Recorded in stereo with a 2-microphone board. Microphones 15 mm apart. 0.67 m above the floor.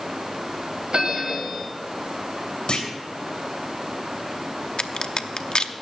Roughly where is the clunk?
Left.